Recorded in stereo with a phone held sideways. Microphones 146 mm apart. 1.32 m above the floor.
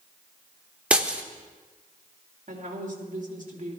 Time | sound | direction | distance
0.9 | breaking glass | 10° right (ahead or behind) | 1.0 m
2.5 | a woman speaking | 60° right (ahead or behind) | 2.5 m